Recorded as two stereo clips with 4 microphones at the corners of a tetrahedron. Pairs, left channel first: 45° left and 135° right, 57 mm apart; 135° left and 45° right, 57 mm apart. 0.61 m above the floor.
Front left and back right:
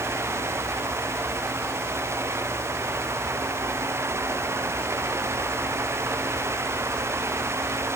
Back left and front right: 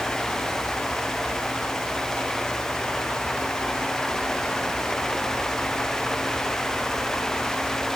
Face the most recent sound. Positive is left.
No sound to turn to.